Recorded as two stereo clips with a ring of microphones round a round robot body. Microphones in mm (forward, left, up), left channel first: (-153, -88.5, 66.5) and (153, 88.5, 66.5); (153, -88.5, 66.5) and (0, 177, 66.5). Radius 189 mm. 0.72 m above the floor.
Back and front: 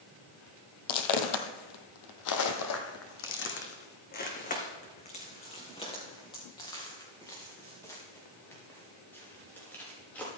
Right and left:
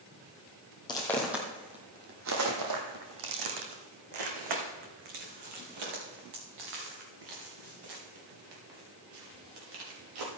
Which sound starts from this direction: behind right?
Footsteps, at 0.9 s.